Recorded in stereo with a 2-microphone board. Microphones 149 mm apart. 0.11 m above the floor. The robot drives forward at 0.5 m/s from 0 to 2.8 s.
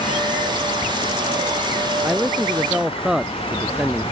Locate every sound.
2.0 s a man speaking: 5° right (ahead or behind)